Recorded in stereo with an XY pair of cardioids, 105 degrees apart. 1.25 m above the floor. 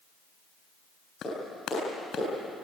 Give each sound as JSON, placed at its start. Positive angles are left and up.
{"t": 1.2, "sound": "a clap", "azimuth_deg": 65, "distance_m": 7.5}